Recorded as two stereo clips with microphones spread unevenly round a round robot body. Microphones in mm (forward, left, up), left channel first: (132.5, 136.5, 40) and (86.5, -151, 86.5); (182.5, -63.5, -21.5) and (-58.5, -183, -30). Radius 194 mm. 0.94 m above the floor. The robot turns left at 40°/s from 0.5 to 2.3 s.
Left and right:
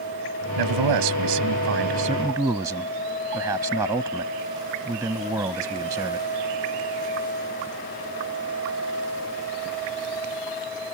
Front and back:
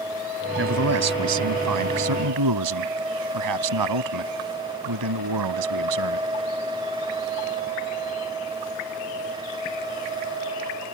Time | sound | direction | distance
0.6 | a man speaking | 110° right | ?